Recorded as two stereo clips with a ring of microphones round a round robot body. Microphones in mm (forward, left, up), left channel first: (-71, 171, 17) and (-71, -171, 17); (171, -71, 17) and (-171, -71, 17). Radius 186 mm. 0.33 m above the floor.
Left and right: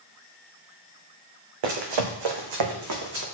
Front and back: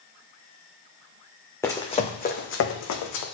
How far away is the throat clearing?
I don't hear throat clearing.